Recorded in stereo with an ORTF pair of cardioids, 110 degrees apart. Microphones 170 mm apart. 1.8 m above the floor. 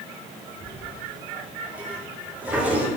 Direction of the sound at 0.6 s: 10° right.